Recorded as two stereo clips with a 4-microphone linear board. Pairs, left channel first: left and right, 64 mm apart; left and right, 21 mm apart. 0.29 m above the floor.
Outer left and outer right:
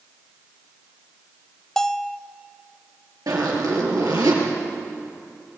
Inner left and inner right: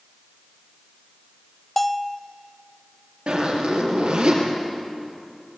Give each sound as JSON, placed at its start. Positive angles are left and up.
{"t": 1.8, "sound": "a bell", "side_deg": 5, "distance_m": 0.6}
{"t": 3.3, "sound": "a zipper", "side_deg": -80, "distance_m": 5.5}